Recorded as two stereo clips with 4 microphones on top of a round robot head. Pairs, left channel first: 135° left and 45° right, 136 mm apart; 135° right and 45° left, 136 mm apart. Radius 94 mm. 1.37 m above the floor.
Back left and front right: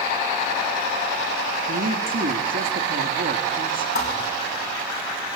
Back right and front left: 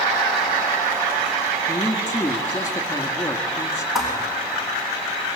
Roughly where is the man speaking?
Ahead right.